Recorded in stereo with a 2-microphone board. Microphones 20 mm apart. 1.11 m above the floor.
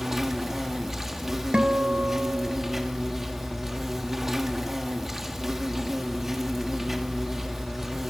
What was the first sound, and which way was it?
An insect, 15° right (ahead or behind).